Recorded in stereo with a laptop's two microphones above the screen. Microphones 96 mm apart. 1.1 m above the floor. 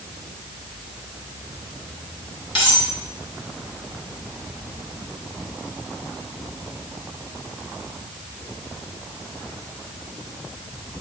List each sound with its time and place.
2.5 s cutlery clinking: 70° left (ahead or behind), 3 m